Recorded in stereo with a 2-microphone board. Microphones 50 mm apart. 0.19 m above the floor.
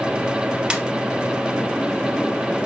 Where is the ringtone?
15° right (ahead or behind), 1.9 m.